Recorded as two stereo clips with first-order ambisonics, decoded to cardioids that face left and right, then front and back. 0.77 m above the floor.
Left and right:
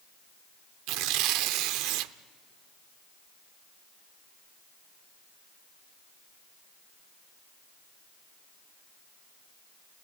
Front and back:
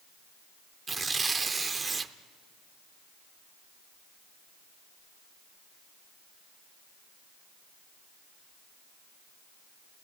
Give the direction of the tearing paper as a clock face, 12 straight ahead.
3 o'clock.